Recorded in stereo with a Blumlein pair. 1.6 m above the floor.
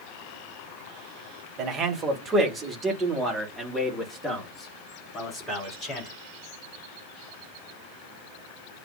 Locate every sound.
1.6 s a man speaking: 30° right, 2.0 m; by 6.1 s 20° left, 4 m